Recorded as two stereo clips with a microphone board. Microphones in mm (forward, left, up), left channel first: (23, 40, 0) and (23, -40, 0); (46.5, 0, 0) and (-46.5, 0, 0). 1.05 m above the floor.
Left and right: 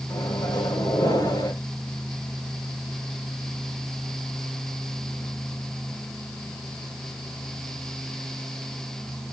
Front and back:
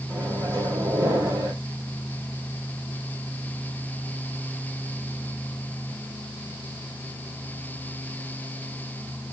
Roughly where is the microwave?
Behind left.